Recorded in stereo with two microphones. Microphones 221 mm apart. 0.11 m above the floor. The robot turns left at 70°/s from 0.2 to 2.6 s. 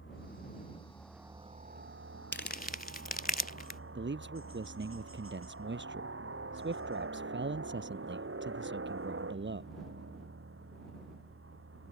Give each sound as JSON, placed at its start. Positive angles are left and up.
{"t": 0.0, "sound": "a helicopter", "azimuth_deg": 65}
{"t": 2.3, "sound": "crumpling", "side_deg": 55}
{"t": 4.0, "sound": "a man speaking", "side_deg": -55}